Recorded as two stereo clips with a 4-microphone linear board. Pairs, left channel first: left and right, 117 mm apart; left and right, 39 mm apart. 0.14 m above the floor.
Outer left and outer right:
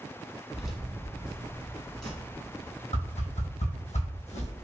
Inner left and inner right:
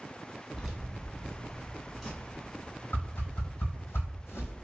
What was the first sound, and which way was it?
Keys jangling, 5° right (ahead or behind).